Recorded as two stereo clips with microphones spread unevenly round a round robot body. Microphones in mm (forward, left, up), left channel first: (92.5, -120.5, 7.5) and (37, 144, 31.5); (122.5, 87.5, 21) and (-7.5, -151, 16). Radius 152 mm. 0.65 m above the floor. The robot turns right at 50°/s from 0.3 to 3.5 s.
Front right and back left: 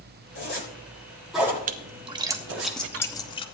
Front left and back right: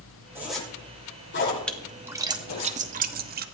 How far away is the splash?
About 1.0 m.